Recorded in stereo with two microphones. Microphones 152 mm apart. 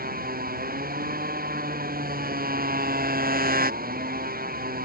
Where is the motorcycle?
75° right (ahead or behind).